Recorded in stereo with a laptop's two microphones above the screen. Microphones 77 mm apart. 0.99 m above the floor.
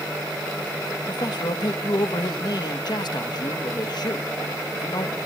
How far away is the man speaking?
About 1.1 m.